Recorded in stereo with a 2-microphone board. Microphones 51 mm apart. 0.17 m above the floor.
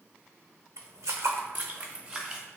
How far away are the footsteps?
About 0.6 m.